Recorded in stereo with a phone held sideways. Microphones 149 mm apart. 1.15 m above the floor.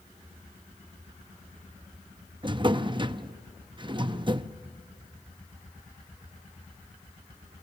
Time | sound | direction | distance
2.4 | a drawer | 35° right (ahead or behind) | 0.6 m